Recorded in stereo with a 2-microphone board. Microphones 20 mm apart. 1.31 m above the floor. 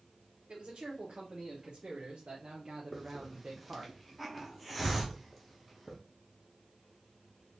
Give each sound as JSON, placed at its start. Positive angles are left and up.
{"t": 0.5, "sound": "a man speaking", "side_deg": -55, "distance_m": 1.7}
{"t": 2.9, "sound": "a hiss", "side_deg": -5, "distance_m": 0.8}